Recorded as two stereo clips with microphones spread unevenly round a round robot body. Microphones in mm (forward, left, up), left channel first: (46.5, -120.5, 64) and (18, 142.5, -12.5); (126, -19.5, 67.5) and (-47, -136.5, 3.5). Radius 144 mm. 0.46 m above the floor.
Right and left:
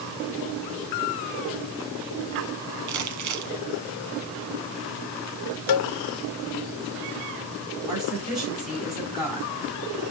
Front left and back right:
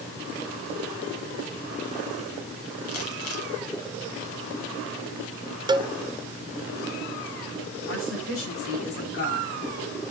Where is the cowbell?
80° right, 0.5 m.